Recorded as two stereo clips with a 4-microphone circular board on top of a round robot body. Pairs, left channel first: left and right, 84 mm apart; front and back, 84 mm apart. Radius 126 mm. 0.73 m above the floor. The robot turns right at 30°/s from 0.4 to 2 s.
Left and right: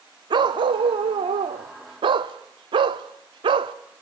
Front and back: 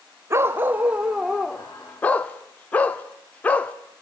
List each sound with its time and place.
0.3 s a dog barking: 120° right, 0.7 m; by 3.7 s 70° right, 0.7 m